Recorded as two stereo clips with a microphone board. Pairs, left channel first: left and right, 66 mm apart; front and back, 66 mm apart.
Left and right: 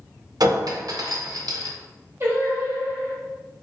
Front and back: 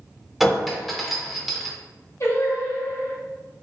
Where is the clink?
90° right, 0.5 m.